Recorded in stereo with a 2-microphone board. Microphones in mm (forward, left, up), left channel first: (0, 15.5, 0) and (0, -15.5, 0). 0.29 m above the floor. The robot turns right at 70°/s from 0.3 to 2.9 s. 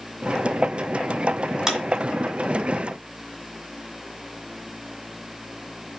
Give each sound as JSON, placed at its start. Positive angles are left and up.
{"t": 1.7, "sound": "a clap", "side_deg": -20, "distance_m": 1.8}